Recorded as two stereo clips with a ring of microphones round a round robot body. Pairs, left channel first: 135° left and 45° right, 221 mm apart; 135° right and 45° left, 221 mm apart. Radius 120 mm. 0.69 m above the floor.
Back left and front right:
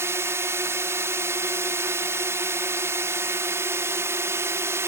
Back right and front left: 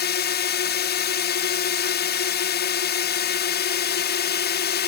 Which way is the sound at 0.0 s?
120° right.